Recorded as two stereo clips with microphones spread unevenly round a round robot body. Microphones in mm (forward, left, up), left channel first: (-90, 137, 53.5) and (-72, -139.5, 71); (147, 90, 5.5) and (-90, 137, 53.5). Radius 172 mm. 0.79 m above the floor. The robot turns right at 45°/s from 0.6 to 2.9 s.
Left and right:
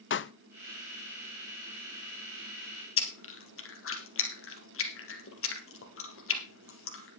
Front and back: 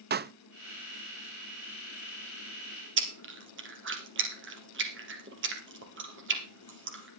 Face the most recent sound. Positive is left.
turn(degrees=135)